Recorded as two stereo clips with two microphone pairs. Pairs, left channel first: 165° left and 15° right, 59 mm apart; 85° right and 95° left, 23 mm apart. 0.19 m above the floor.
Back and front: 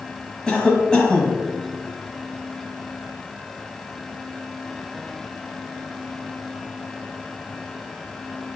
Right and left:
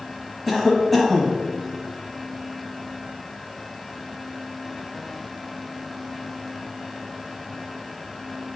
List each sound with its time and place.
0.5 s a cough: 150° right, 1.0 m